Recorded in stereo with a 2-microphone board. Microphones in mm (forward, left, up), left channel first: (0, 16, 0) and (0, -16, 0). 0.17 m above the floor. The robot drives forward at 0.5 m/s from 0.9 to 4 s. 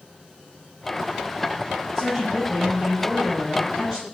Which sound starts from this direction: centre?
A woman speaking, at 1.9 s.